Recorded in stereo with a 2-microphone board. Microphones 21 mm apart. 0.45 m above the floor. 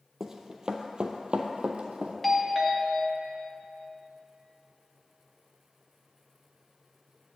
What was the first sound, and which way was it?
Running footsteps, 20° right (ahead or behind).